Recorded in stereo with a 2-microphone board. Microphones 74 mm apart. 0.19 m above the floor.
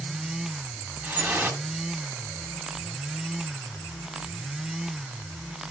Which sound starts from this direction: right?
Dripping, at 1.0 s.